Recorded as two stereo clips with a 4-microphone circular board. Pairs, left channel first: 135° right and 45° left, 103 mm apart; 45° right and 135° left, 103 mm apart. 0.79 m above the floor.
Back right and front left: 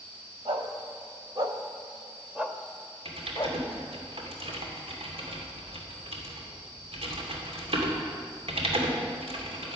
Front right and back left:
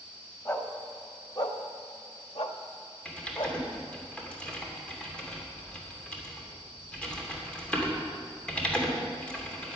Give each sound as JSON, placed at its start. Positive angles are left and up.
{"t": 0.5, "sound": "a dog barking", "azimuth_deg": 15, "distance_m": 1.6}
{"t": 3.0, "sound": "typing on a keyboard", "azimuth_deg": 35, "distance_m": 2.5}